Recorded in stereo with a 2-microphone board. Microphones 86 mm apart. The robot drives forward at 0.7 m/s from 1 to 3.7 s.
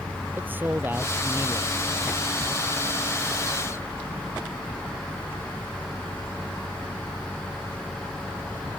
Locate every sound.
0.4 s a man speaking: 20° right (ahead or behind)